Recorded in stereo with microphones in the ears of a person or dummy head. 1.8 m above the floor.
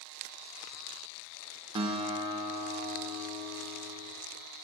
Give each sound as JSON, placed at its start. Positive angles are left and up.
{"t": 1.8, "sound": "a guitar", "side_deg": -25, "distance_m": 0.8}